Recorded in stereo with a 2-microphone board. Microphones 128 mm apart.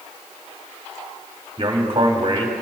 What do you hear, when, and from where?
1.6 s a man speaking: 40° right (ahead or behind), 2.5 m